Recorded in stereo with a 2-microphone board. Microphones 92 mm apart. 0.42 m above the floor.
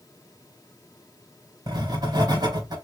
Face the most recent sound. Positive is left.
turn(degrees=-50)  # may be behind; listen again after turning